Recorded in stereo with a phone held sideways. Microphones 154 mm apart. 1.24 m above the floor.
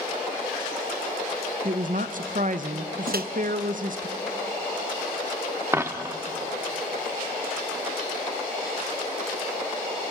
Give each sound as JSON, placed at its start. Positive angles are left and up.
{"t": 1.6, "sound": "a woman speaking", "side_deg": -60, "distance_m": 0.8}
{"t": 3.1, "sound": "a microwave", "side_deg": -80, "distance_m": 0.7}
{"t": 5.7, "sound": "a dropped coin", "side_deg": -15, "distance_m": 0.7}